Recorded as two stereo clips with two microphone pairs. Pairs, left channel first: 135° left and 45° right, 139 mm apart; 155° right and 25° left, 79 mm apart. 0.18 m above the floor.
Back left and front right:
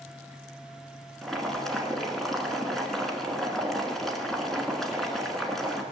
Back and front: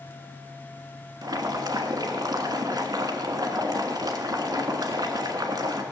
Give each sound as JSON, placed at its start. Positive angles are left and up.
{"t": 1.2, "sound": "boiling", "azimuth_deg": 45, "distance_m": 1.4}